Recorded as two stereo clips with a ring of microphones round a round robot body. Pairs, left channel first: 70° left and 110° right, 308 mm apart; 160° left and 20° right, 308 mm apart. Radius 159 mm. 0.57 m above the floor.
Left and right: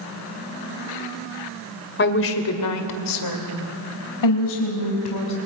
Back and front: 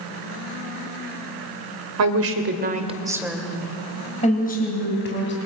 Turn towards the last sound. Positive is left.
turn(degrees=105)